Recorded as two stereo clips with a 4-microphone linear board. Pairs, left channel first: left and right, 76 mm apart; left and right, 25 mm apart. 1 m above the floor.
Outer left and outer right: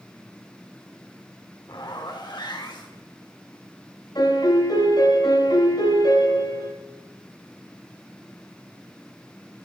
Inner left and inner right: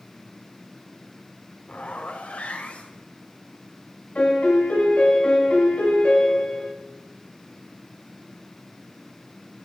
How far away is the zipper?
About 2 m.